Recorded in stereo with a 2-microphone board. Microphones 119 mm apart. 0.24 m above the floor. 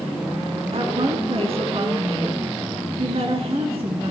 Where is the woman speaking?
55° right (ahead or behind), 3 m.